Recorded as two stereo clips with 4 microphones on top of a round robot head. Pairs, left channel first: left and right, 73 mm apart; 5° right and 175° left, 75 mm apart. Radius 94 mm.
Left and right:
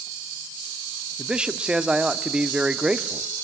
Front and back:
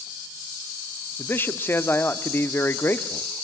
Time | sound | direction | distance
1.2 | a man speaking | 25° right | 0.8 m